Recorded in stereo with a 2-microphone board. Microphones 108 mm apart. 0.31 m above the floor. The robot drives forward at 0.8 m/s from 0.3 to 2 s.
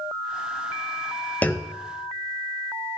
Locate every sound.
1.4 s a clunk: 15° left (ahead or behind), 0.7 m; by 1.8 s 10° left (ahead or behind), 1.0 m